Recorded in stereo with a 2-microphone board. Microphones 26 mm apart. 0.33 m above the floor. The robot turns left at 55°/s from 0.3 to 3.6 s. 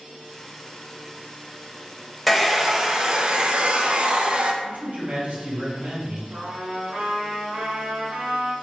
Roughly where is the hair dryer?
Ahead.